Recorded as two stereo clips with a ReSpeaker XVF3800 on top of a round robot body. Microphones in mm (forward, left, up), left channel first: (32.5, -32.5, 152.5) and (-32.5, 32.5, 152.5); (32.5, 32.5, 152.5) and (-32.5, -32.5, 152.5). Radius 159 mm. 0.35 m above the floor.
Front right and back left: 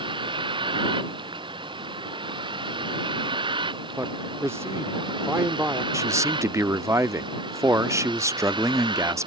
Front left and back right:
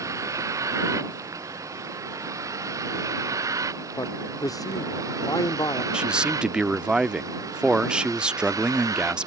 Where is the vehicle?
165° left; by 9.3 s 170° left.